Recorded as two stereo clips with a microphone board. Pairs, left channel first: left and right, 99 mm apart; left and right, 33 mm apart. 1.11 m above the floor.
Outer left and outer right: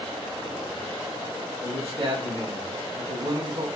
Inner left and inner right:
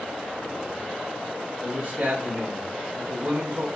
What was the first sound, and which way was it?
A man speaking, 65° right (ahead or behind).